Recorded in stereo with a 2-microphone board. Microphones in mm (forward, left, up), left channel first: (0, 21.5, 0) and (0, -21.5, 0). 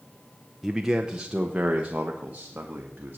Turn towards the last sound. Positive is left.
turn(degrees=-40)  # may be behind; listen again after turning